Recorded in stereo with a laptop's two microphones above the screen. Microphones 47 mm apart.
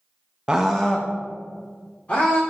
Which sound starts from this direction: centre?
A scream, at 0.5 s.